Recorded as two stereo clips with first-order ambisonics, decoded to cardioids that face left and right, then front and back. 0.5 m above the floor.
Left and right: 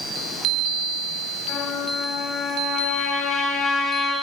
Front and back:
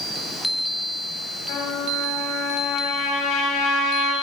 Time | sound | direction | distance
1.5 | a trumpet | 25° left | 6.5 m